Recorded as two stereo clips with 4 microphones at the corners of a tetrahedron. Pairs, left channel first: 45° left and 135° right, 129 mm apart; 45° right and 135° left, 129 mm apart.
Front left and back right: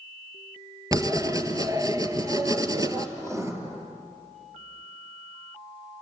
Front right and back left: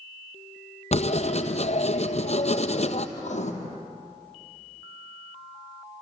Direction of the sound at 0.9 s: 75° right.